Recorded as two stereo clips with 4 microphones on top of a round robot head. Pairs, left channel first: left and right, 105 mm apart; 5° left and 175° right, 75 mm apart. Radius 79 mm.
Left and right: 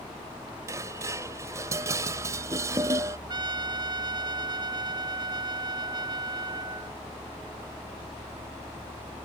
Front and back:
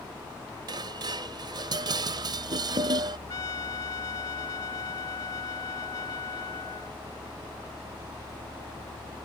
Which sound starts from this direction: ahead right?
A trumpet, at 3.3 s.